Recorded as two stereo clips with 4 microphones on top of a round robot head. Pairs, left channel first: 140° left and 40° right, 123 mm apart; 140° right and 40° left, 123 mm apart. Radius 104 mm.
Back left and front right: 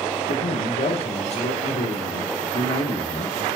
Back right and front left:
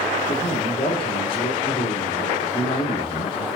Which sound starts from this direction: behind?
A man speaking, at 0.3 s.